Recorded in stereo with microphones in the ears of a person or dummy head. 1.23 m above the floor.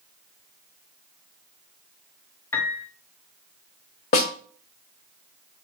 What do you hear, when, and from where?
2.5 s a piano: 10° left (ahead or behind), 1.6 m
4.1 s a snare drum: 30° left (ahead or behind), 1.0 m